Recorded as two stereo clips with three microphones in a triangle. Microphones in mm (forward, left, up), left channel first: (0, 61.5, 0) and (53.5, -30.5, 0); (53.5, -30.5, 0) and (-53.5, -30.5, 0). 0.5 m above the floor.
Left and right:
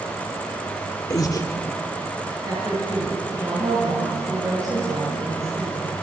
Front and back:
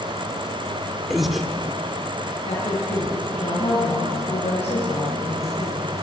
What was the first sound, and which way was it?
Breathing, 90° left.